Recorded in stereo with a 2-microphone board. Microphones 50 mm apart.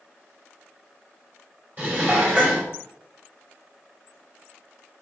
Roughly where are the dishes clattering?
Right.